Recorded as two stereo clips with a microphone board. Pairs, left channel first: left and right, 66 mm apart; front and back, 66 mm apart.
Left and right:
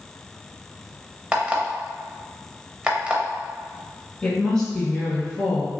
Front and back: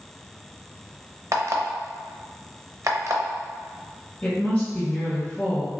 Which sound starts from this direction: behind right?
An alarm clock, at 1.3 s.